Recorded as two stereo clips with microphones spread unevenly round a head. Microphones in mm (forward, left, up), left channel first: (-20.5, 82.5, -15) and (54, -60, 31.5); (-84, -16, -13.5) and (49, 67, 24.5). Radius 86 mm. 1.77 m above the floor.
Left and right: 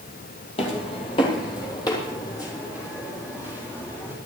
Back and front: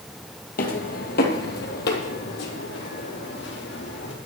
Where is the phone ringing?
No phone ringing in this recording.